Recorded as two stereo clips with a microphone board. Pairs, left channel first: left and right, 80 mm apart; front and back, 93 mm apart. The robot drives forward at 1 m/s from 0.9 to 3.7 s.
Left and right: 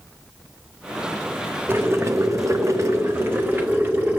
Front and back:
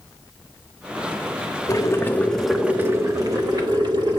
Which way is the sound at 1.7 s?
40° right.